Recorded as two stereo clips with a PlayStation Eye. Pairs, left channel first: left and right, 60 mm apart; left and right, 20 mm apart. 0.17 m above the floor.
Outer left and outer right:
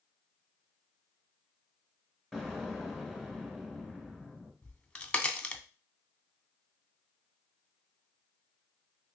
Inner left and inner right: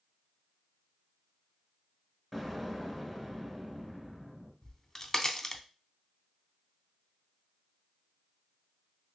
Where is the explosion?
5° right (ahead or behind), 1.0 m.